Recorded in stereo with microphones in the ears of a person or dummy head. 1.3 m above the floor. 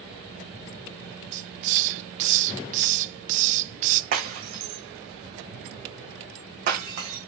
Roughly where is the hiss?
Right.